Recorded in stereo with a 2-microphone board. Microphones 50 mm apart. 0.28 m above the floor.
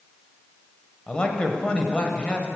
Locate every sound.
1.1 s a man speaking: 20° left (ahead or behind), 1.0 m